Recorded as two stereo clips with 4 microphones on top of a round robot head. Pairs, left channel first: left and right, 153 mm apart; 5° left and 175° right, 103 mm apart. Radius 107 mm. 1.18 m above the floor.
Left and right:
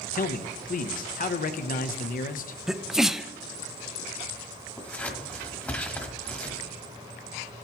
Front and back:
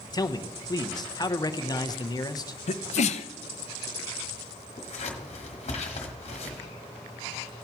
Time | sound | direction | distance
0.1 | a man speaking | 55° left | 0.8 m
2.7 | a sneeze | 5° right | 0.5 m
4.8 | scissors | 10° left | 1.3 m